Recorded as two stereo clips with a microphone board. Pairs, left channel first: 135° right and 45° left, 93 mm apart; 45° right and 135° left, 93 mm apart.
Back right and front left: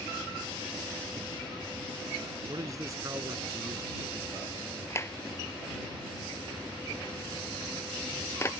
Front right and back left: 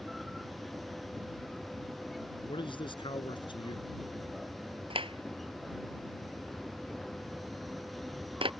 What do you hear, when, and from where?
2.5 s a man speaking: 10° right
4.9 s a clap: 160° left